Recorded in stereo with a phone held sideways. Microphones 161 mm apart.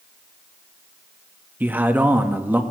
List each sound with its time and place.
1.6 s a man speaking: 10° right (ahead or behind), 1.2 m